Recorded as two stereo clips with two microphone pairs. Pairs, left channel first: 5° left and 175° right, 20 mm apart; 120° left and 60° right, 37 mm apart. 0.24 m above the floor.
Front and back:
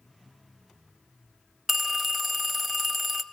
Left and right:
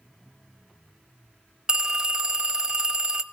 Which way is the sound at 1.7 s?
110° right.